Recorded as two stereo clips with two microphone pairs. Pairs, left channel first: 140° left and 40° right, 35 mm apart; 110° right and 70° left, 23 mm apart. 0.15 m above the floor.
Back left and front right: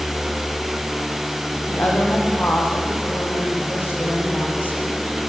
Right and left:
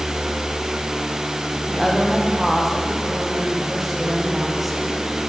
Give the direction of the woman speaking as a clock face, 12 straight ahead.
7 o'clock.